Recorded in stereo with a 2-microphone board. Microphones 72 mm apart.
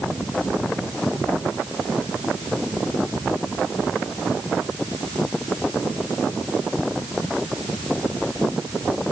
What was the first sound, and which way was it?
Only background noise.